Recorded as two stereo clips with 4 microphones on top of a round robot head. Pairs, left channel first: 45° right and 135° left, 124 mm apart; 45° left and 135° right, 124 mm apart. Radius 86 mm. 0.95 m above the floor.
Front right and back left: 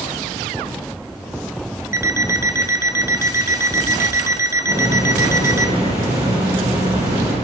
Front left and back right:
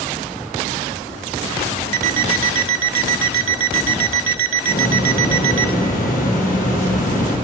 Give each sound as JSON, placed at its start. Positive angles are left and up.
{"t": 1.9, "sound": "an alarm clock", "azimuth_deg": -155, "distance_m": 1.1}
{"t": 4.7, "sound": "a hiss", "azimuth_deg": 70, "distance_m": 8.0}